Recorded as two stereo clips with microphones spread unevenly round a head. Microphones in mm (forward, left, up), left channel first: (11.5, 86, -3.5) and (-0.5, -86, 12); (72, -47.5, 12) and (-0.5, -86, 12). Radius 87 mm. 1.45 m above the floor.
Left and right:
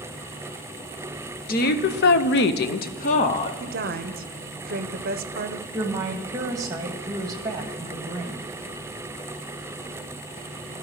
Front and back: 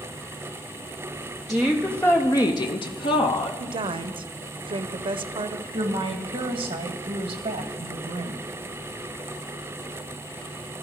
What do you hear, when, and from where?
1.5 s a woman speaking: 120° left, 0.9 m; by 3.5 s 30° left, 0.8 m
3.6 s a woman speaking: 135° right, 0.7 m
5.7 s a woman speaking: 165° right, 1.5 m